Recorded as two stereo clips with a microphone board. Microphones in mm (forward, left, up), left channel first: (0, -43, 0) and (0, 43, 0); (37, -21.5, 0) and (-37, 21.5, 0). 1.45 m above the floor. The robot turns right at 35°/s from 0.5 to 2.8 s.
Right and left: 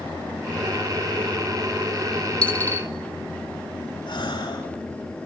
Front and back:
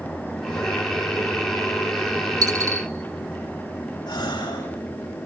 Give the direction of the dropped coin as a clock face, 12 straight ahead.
6 o'clock.